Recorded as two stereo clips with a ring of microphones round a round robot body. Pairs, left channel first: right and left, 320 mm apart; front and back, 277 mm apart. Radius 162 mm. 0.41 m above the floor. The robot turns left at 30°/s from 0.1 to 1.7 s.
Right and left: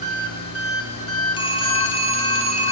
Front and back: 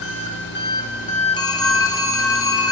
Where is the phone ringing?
45° right, 0.6 m; by 2.7 s 55° right, 0.6 m.